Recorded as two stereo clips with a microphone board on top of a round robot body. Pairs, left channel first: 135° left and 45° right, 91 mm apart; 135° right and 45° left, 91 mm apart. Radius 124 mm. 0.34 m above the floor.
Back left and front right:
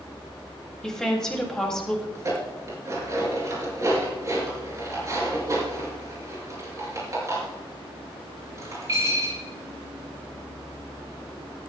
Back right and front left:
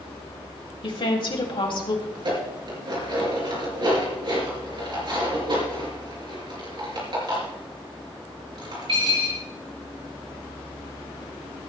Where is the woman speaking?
140° right, 3.5 m.